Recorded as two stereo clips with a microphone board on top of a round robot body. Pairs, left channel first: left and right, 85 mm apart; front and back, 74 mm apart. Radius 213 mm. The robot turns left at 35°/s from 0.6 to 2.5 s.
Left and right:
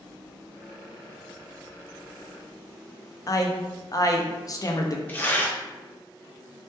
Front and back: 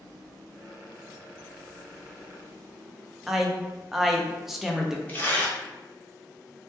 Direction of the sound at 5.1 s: 40° left.